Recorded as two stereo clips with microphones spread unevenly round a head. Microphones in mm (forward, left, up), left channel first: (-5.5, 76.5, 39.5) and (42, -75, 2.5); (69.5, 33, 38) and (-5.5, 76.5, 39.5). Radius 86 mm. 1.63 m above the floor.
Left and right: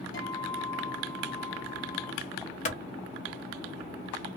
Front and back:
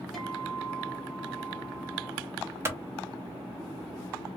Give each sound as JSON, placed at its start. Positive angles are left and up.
{"t": 0.1, "sound": "a guitar", "azimuth_deg": 55, "distance_m": 1.2}
{"t": 2.6, "sound": "a clap", "azimuth_deg": 95, "distance_m": 0.7}